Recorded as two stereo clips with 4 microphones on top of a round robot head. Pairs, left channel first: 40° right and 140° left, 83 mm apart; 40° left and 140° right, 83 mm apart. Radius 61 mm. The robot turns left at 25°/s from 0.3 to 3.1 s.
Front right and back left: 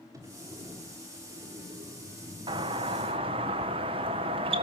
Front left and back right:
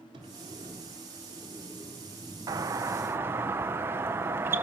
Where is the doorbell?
170° left, 1.3 m; by 4.6 s 155° left, 1.3 m.